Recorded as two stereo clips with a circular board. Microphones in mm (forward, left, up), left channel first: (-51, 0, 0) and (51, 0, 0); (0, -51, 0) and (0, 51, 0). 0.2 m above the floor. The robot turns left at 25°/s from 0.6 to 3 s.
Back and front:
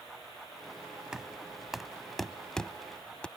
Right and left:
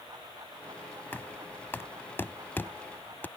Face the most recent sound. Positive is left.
turn(degrees=-115)